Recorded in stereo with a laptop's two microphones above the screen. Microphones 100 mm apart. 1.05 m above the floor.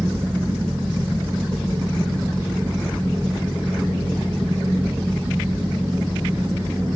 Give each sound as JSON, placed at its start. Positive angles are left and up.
{"t": 0.0, "sound": "a fan", "side_deg": -25, "distance_m": 1.5}